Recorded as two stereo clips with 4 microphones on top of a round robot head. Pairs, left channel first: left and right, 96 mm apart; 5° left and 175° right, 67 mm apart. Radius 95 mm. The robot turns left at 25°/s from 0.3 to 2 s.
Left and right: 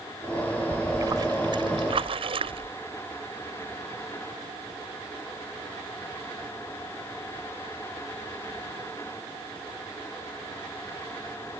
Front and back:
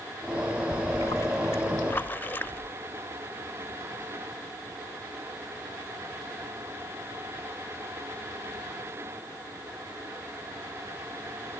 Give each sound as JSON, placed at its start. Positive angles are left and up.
{"t": 0.7, "sound": "a splash", "azimuth_deg": -30}